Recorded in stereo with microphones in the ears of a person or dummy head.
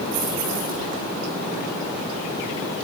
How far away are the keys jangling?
About 9 m.